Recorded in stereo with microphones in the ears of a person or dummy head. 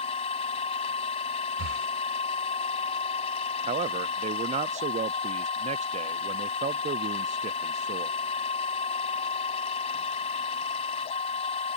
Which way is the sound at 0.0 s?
35° left (ahead or behind).